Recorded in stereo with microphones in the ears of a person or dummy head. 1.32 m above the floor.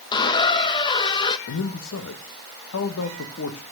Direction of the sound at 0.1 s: 25° left (ahead or behind).